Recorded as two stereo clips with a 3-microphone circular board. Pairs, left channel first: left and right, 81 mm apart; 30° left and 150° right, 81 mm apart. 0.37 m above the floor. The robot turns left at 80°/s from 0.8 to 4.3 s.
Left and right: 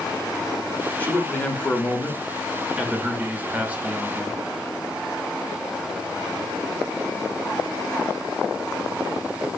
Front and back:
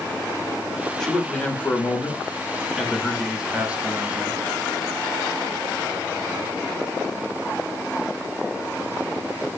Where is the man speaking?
100° left, 0.8 m; by 4.4 s 165° right, 0.8 m.